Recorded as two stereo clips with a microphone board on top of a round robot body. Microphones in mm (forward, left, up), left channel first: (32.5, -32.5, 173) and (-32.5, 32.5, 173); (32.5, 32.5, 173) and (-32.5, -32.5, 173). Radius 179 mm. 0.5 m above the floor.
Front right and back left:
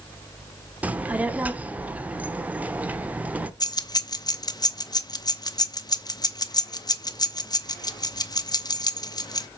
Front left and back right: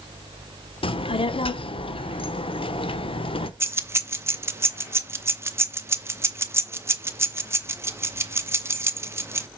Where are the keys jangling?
80° right, 1.0 m.